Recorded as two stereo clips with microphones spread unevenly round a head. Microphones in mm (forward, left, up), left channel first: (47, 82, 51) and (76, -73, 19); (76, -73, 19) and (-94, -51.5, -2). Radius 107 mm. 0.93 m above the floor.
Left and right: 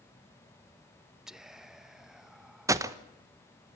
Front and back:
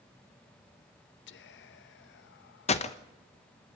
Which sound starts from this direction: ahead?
Whispering, at 1.3 s.